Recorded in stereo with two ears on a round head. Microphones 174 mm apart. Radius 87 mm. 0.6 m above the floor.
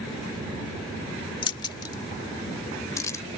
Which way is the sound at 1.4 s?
25° left (ahead or behind).